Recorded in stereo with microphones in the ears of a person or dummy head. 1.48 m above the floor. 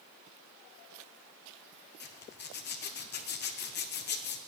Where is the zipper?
50° left (ahead or behind), 0.8 m.